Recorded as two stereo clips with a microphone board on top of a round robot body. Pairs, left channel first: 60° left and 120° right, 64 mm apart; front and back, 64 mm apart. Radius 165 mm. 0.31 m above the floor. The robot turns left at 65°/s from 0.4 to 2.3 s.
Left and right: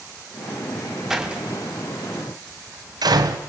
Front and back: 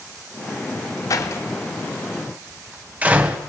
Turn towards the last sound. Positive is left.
turn(degrees=-115)